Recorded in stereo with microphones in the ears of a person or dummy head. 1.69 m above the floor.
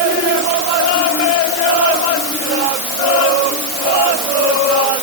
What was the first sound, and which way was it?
Only background noise.